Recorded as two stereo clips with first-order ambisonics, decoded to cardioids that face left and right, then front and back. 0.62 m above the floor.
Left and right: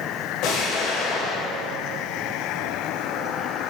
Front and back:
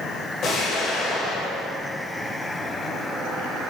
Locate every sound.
0.4 s an explosion: 55° left, 2.0 m